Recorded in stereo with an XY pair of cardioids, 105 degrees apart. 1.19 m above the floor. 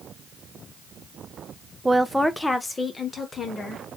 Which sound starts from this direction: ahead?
A woman speaking, at 1.9 s.